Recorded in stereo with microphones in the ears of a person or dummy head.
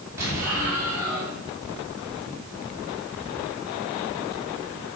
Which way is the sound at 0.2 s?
15° right (ahead or behind).